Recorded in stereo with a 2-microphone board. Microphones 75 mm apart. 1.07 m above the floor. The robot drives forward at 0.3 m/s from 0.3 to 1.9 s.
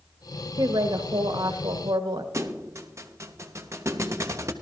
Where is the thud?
40° right (ahead or behind), 0.9 m.